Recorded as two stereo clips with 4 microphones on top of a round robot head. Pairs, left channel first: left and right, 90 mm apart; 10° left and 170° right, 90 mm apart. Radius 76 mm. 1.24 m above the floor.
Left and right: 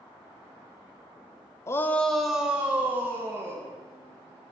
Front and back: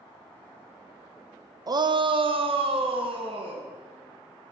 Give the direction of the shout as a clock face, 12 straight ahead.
7 o'clock.